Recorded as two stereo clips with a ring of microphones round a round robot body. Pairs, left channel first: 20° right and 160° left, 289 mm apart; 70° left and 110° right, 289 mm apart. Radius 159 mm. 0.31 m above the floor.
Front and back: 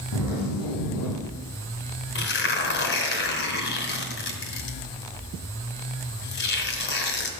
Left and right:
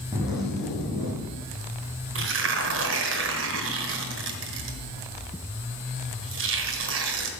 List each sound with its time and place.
0.1 s a zipper: 25° right, 5 m
2.1 s tearing paper: 70° right, 2 m